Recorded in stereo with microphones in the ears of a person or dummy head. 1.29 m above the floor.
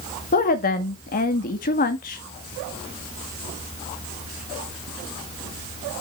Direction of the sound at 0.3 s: 40° left (ahead or behind).